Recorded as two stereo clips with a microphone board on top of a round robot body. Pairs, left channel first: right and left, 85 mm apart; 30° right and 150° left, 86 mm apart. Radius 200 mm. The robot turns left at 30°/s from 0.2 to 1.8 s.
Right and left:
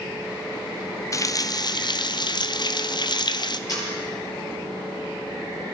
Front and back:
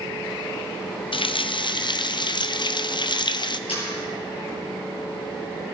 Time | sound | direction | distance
1.1 | a running tap | 40° right | 0.8 m
3.7 | a camera shutter | 40° right | 5.5 m